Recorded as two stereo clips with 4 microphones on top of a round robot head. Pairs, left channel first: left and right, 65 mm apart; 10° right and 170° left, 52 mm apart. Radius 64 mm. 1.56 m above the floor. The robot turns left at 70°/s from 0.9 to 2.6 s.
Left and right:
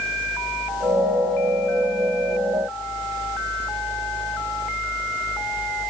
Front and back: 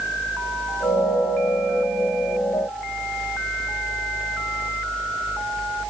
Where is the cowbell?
No cowbell in this recording.